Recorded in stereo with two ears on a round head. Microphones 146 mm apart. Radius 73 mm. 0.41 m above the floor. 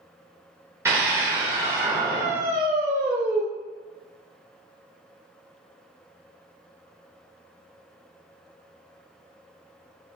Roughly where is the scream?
Centre.